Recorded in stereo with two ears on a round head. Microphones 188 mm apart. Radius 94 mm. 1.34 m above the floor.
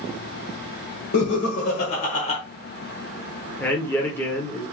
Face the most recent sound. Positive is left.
turn(degrees=10)  # may be behind; listen again after turning